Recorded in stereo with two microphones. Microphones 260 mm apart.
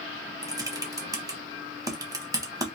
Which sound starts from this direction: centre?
Typing on a keyboard, at 0.4 s.